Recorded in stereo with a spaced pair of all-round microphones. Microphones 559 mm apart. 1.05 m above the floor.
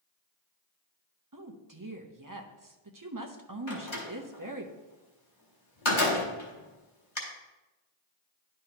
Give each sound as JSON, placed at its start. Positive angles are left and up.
{"t": 1.3, "sound": "a woman speaking", "side_deg": -35, "distance_m": 0.8}
{"t": 3.7, "sound": "a door slam", "side_deg": 55, "distance_m": 1.8}